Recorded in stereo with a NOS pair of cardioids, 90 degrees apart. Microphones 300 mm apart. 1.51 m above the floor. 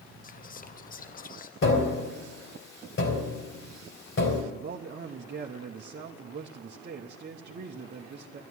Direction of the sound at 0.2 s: 30° left.